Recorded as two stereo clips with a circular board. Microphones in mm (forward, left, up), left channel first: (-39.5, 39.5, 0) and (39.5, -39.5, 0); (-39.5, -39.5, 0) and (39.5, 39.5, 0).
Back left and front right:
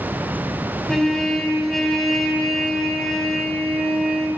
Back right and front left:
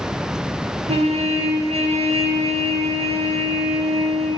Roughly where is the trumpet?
Ahead left.